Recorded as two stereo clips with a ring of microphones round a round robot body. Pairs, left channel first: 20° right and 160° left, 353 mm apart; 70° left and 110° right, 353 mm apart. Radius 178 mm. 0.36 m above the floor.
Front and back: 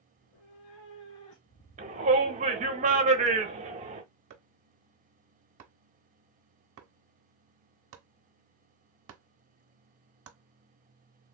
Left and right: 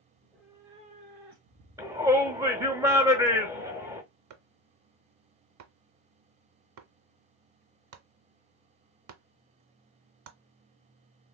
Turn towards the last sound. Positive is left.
turn(degrees=-150)